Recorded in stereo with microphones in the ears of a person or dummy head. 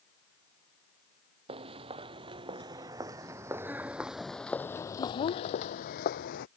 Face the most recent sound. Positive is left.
turn(degrees=65)  # may be behind; listen again after turning